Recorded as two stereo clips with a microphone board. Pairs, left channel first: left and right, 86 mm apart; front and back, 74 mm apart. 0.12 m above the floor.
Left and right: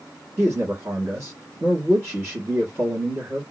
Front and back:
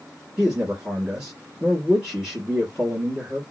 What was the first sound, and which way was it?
A man speaking, 110° right.